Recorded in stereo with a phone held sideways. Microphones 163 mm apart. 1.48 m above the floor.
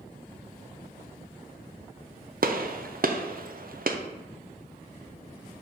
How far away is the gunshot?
About 0.5 m.